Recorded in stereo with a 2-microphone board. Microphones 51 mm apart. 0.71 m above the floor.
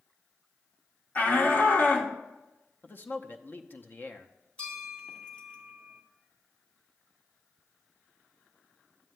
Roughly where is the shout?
Left.